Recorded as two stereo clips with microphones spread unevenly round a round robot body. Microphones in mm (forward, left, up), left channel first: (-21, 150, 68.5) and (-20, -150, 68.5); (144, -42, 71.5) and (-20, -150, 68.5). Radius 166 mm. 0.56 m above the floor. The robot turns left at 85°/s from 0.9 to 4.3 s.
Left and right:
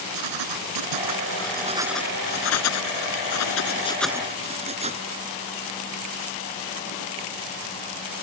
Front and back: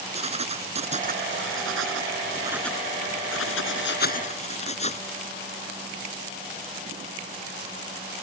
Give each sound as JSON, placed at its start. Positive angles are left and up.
{"t": 0.1, "sound": "writing", "azimuth_deg": -90}